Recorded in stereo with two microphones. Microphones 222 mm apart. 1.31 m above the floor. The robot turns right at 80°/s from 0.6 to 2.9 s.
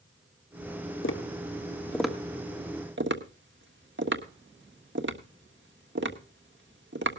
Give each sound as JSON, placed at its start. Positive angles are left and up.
{"t": 1.0, "sound": "tapping", "side_deg": 65, "distance_m": 1.4}